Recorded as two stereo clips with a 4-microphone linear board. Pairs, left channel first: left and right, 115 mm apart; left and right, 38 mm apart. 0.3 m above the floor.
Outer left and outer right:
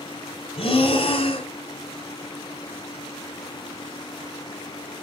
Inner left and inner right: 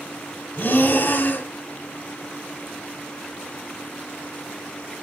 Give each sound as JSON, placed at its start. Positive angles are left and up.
{"t": 0.6, "sound": "breathing", "side_deg": 55, "distance_m": 1.4}